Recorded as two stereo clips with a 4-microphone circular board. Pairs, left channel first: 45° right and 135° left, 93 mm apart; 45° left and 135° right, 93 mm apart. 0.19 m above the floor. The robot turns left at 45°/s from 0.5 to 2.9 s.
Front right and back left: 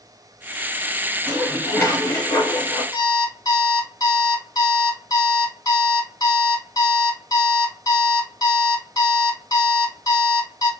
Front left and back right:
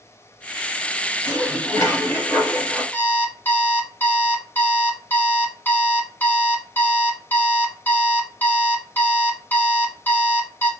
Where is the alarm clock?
20° right, 0.7 m.